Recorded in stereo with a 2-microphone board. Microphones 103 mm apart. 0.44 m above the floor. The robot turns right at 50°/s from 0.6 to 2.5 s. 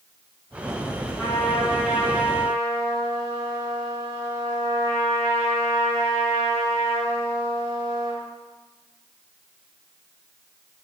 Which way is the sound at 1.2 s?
165° left.